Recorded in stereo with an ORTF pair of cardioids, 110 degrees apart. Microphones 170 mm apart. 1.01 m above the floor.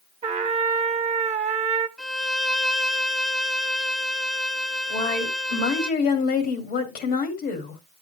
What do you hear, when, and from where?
0.2 s a trumpet: 40° right, 1.2 m
2.0 s a violin: straight ahead, 0.7 m
4.9 s a woman speaking: 70° left, 2.5 m